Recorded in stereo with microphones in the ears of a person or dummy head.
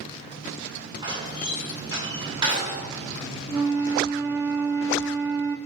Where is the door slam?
25° right (ahead or behind), 3 m.